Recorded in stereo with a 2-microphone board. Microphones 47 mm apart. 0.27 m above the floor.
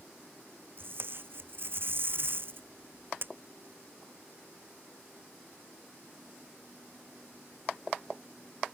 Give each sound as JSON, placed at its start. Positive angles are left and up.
{"t": 0.8, "sound": "tape being pulled", "side_deg": -50}